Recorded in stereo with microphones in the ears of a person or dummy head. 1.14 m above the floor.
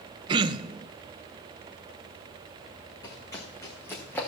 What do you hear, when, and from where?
0.3 s throat clearing: 30° right (ahead or behind), 0.7 m
3.0 s running footsteps: 20° left (ahead or behind), 4 m; by 4.3 s 10° left (ahead or behind), 2.5 m